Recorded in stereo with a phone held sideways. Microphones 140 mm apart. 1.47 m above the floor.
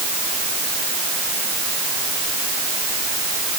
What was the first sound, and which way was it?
Only background noise.